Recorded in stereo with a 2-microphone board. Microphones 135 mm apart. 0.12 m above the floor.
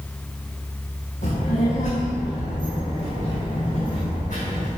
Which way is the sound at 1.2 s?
70° left (ahead or behind).